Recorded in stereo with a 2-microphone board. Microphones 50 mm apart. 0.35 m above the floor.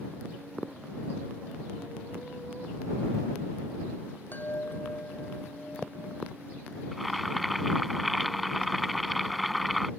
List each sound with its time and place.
4.3 s a chime: 40° left (ahead or behind)
6.9 s boiling: centre (ahead or behind)